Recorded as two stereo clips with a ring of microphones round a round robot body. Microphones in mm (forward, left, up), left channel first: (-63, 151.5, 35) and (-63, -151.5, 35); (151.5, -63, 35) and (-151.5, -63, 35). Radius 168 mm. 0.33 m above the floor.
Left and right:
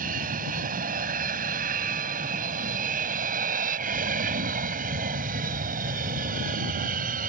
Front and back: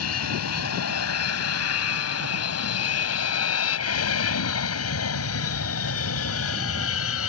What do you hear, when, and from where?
0.0 s an aircraft: 25° right; by 7.3 s 30° right